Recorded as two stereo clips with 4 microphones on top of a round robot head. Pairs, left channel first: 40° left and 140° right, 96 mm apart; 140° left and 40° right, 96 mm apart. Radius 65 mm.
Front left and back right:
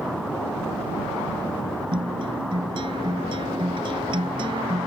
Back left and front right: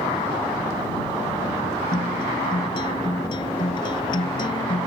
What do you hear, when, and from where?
1.9 s a guitar: 175° right